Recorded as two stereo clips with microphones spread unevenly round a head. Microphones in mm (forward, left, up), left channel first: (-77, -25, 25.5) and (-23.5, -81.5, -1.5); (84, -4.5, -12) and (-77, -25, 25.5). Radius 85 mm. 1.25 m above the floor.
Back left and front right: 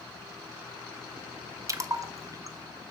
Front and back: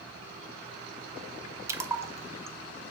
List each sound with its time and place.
1.7 s a splash: 100° right, 0.6 m